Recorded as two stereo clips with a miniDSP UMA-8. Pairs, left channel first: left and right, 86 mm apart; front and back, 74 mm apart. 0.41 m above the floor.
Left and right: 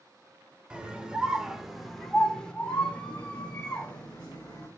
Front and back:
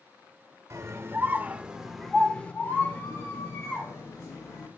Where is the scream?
165° right, 1.2 m; by 4.7 s 20° left, 2 m.